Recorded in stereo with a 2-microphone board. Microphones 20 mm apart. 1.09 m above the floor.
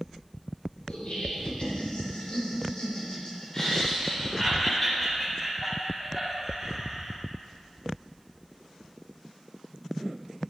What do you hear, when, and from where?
0.9 s laughter: 65° left (ahead or behind), 3 m; by 7.2 s 5° left (ahead or behind), 4 m